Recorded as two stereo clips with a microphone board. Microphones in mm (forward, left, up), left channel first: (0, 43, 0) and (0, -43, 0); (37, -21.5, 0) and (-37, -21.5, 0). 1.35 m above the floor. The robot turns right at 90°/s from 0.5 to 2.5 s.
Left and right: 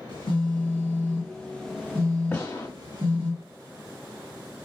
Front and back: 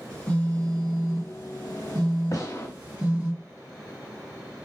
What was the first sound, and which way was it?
A phone buzzing, 70° left.